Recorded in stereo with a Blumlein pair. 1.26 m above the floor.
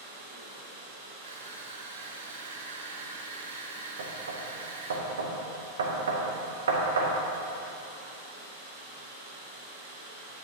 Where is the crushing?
60° right, 0.7 m.